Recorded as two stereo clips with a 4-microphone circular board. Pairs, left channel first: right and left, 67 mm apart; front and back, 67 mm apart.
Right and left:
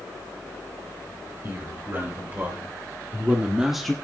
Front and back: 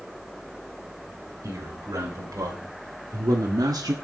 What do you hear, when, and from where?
1.4 s a man speaking: 140° left, 4.5 m; by 4.0 s 170° right, 1.0 m